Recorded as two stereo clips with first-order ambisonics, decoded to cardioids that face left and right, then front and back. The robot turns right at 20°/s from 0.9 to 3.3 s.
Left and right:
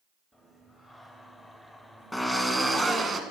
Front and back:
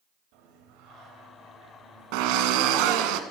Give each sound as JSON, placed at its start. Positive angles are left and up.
{"t": 0.3, "sound": "singing", "azimuth_deg": -175, "distance_m": 3.5}
{"t": 2.1, "sound": "a drill", "azimuth_deg": 180, "distance_m": 1.7}